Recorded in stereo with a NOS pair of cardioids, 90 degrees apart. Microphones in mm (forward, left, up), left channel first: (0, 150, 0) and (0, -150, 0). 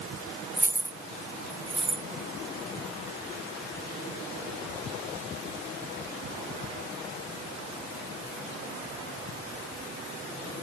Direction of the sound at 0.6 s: 5° right.